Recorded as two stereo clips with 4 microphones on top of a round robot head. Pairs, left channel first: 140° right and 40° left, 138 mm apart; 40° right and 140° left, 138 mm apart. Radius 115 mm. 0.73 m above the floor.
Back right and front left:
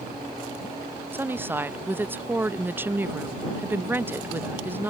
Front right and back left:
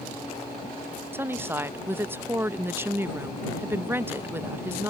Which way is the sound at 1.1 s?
90° left.